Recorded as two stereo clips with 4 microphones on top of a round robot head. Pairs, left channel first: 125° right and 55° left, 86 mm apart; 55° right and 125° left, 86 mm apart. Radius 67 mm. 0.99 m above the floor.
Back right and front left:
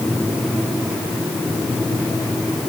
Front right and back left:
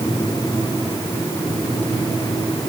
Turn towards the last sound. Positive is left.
No sound to turn to.